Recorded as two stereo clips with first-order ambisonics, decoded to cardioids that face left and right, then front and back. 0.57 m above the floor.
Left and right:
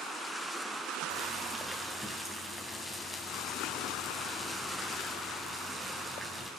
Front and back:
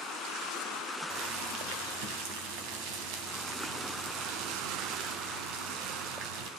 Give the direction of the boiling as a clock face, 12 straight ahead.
6 o'clock.